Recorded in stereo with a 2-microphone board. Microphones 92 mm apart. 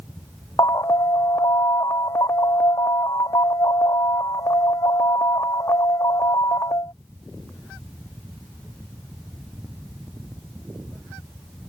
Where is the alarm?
40° left (ahead or behind).